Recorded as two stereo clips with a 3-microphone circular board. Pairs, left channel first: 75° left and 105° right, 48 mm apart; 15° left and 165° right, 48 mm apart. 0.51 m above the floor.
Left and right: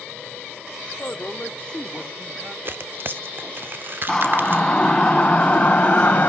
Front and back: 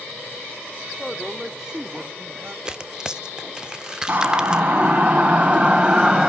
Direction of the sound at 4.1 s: 150° left.